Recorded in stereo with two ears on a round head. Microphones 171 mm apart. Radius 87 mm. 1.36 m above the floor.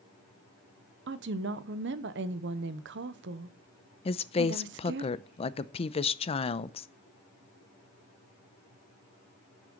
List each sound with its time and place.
1.1 s a woman speaking: 65° right (ahead or behind), 0.8 m
4.0 s a woman speaking: 30° left (ahead or behind), 0.5 m